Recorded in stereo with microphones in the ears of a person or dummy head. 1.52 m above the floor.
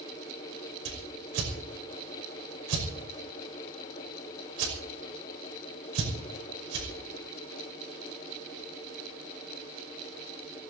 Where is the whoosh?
80° right, 5.5 m.